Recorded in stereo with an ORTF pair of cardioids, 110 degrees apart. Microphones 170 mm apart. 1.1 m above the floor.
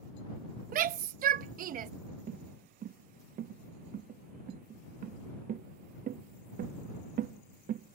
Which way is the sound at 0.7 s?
55° right.